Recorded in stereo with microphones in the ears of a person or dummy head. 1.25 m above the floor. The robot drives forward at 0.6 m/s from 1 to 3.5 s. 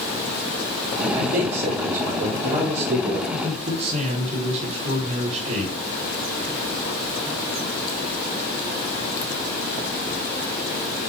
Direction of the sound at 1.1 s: 50° right (ahead or behind).